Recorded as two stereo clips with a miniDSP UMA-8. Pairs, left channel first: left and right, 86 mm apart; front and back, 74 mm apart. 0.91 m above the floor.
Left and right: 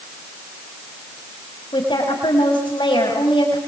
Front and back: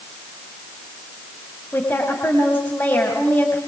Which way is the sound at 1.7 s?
60° left.